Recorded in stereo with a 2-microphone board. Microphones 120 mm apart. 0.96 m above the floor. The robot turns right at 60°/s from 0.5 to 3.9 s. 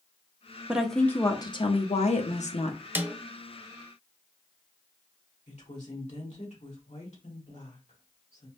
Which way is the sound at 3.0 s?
15° right (ahead or behind).